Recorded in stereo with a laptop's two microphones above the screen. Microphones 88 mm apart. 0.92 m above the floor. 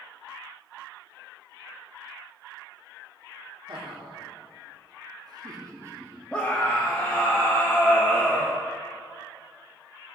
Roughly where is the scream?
Centre.